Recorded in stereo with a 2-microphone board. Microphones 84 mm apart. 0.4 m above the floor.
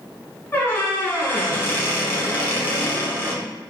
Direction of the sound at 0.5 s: 30° left (ahead or behind).